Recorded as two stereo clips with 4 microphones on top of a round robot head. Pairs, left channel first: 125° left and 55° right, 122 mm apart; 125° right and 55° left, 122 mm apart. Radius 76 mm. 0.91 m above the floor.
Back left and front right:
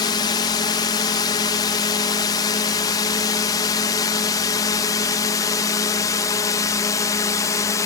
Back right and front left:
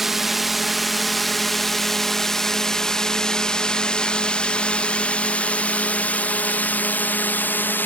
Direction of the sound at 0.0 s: 140° left.